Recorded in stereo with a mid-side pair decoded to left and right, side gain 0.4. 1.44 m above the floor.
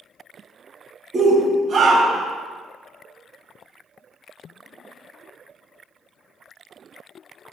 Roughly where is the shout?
Ahead right.